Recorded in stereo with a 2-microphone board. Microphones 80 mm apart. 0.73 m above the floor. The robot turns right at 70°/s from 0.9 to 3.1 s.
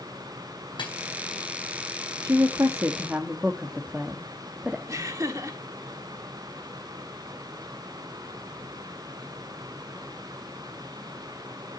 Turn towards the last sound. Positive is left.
turn(degrees=-45)  # may be behind; listen again after turning